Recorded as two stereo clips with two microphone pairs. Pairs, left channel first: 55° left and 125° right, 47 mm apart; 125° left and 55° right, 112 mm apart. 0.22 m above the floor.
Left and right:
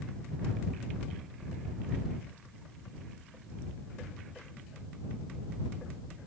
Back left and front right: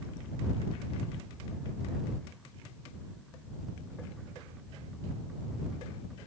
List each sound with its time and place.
Only background noise.